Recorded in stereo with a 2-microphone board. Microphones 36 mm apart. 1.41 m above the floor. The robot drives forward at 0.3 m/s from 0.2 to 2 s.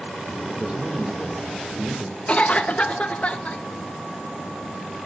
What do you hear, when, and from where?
0.5 s a man speaking: 35° right (ahead or behind), 2.5 m; by 2.2 s 40° right (ahead or behind), 2 m
2.3 s a cough: 40° left (ahead or behind), 0.9 m